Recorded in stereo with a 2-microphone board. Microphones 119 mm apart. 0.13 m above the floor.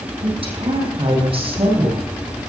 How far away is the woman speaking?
About 6 m.